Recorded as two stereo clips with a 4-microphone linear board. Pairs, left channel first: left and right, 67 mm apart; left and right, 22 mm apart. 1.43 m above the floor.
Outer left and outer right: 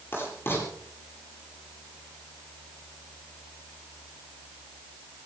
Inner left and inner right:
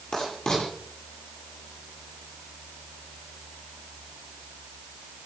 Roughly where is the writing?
Left.